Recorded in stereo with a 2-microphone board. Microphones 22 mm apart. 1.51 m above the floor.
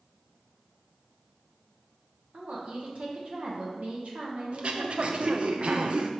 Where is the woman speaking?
60° right (ahead or behind), 1.4 m.